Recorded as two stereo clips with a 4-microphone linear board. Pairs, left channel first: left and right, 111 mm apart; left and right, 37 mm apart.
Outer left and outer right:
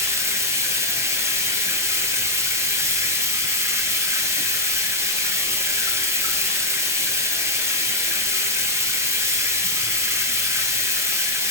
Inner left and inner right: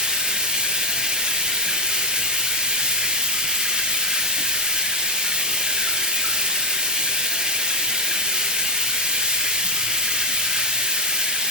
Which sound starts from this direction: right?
Running water, at 0.0 s.